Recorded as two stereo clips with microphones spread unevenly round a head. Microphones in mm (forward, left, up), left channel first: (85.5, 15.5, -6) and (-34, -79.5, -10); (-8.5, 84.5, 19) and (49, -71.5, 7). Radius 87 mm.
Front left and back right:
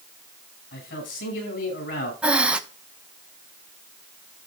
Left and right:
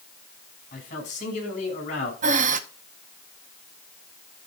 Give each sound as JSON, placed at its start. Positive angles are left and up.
{"t": 0.7, "sound": "a man speaking", "azimuth_deg": 65, "distance_m": 6.0}
{"t": 2.2, "sound": "breathing", "azimuth_deg": -60, "distance_m": 0.9}